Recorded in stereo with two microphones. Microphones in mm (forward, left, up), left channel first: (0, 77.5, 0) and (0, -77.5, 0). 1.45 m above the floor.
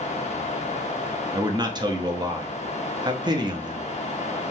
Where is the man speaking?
30° right (ahead or behind), 0.5 m.